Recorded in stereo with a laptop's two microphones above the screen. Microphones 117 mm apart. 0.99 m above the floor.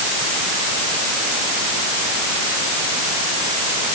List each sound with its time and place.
Only background noise.